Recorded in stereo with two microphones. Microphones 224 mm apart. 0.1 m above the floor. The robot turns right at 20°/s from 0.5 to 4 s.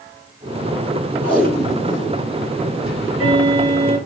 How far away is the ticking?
About 2 m.